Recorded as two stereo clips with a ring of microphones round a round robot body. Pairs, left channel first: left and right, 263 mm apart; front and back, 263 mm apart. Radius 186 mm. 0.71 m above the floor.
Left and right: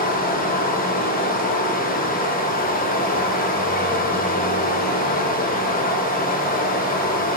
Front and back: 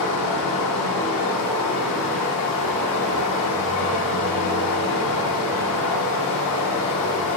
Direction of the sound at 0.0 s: 30° left.